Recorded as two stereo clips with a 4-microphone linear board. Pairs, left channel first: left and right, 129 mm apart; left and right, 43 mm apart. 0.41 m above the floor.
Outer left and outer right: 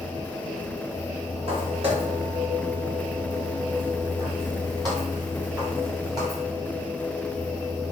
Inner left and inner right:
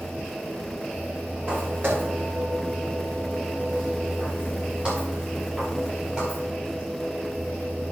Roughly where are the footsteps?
Right.